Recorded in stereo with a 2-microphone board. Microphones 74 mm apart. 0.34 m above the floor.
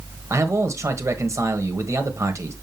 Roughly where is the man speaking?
Right.